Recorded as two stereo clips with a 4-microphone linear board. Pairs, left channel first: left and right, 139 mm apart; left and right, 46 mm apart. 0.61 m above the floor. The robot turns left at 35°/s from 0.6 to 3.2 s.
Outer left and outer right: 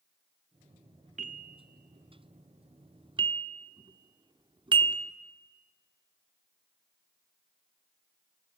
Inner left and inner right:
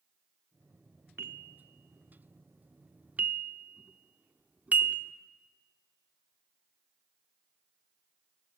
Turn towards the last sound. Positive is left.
turn(degrees=-35)  # may be behind; listen again after turning